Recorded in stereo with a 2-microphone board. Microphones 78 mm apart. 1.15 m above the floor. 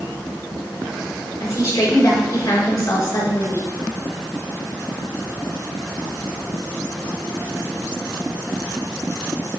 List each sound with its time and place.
1.4 s a woman speaking: 45° left (ahead or behind), 3.5 m